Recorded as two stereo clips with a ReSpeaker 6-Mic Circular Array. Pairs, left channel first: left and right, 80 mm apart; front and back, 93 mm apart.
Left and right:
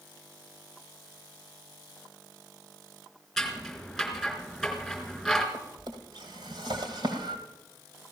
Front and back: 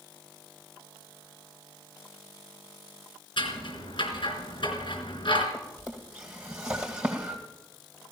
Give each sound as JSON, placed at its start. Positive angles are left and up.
{"t": 3.4, "sound": "scissors", "azimuth_deg": 0, "distance_m": 3.5}
{"t": 5.5, "sound": "a drawer", "azimuth_deg": -105, "distance_m": 2.5}